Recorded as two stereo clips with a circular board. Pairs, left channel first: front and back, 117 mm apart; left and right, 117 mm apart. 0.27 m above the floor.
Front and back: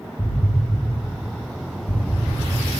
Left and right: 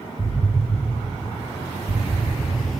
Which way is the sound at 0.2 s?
40° left.